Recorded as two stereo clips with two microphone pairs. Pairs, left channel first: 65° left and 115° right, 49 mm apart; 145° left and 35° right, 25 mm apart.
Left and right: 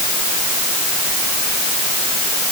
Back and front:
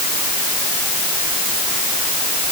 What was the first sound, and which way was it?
Only background noise.